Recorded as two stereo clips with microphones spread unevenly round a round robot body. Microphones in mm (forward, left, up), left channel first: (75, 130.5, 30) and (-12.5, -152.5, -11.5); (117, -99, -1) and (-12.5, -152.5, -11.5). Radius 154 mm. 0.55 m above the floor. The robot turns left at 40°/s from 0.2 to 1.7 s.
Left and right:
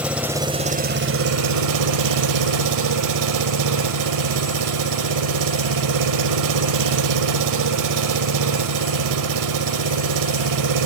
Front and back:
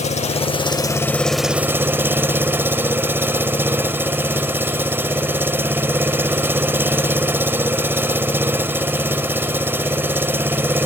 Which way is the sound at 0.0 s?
20° right.